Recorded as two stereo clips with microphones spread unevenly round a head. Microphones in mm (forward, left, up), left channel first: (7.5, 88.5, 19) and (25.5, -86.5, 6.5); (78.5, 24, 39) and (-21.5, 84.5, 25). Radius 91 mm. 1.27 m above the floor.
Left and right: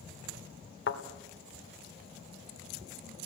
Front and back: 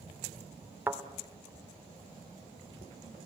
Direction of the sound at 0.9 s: 75° left.